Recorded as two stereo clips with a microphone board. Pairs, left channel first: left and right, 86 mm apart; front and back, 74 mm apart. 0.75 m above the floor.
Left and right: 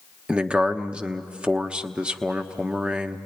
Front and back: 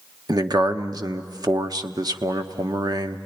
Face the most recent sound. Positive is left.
turn(degrees=-165)